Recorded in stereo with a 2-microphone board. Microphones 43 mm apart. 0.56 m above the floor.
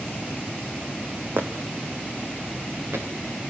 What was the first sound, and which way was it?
Footsteps, 60° right (ahead or behind).